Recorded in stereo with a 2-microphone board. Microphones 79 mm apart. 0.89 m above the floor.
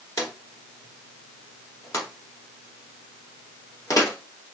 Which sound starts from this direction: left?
A drawer, at 0.2 s.